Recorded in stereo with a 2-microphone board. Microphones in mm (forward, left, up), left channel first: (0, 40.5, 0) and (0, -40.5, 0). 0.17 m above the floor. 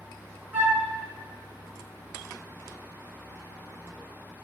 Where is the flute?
30° right (ahead or behind), 1.0 m.